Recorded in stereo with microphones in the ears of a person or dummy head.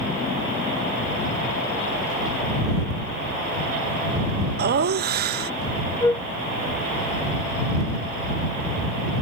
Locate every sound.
4.6 s laughter: 50° right (ahead or behind)
6.0 s a flute: 15° left (ahead or behind)